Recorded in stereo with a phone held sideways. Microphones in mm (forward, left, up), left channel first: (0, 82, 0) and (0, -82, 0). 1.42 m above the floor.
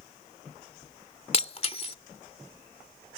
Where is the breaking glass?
40° left (ahead or behind).